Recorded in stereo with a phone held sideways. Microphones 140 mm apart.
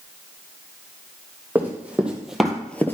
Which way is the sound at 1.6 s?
15° right (ahead or behind).